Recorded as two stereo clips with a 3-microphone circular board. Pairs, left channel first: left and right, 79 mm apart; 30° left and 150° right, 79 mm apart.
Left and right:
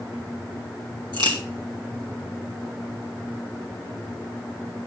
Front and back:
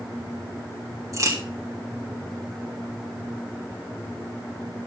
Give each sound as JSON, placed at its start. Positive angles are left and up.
{"t": 1.1, "sound": "a crack", "azimuth_deg": -105, "distance_m": 3.5}